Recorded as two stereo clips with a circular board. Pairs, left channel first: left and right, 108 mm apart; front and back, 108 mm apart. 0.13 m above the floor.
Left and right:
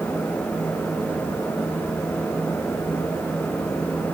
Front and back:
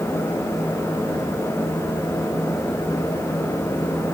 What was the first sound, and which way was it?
Only background noise.